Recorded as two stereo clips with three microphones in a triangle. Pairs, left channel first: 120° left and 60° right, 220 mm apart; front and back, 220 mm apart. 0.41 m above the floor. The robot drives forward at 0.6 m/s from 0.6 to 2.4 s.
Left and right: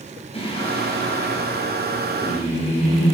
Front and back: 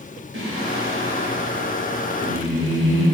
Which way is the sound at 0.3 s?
Straight behind.